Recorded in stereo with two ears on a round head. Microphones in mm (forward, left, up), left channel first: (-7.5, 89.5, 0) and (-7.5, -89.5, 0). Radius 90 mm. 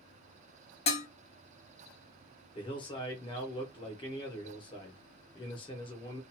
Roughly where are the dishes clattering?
Left.